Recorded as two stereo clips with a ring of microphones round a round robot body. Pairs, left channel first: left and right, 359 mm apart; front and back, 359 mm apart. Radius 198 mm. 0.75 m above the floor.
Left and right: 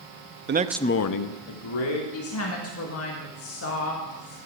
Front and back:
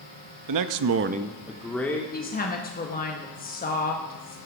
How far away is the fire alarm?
No fire alarm in this recording.